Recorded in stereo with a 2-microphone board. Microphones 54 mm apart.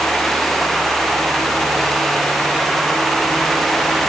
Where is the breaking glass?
No breaking glass in this recording.